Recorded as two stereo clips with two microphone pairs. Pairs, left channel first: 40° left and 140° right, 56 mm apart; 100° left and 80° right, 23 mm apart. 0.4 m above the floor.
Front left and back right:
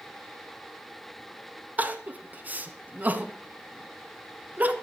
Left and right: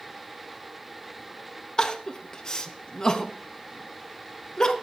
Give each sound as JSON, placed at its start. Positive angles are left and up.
{"t": 1.8, "sound": "crying", "azimuth_deg": 160, "distance_m": 0.8}